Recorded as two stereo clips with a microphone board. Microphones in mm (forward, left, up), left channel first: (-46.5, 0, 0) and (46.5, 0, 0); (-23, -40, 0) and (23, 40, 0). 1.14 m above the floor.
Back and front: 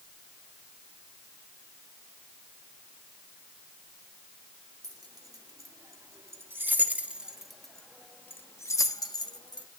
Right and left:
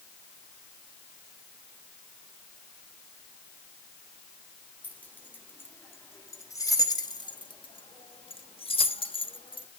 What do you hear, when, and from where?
4.8 s keys jangling: 45° right, 2.5 m; by 9.7 s 145° right, 1.6 m